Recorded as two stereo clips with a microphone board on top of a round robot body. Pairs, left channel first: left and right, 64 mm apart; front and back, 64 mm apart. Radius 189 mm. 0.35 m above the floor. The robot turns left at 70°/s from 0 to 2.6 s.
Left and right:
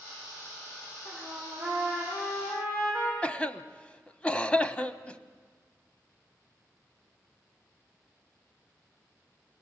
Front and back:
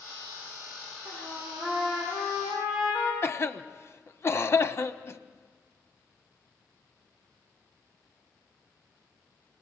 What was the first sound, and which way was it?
A trumpet, 140° right.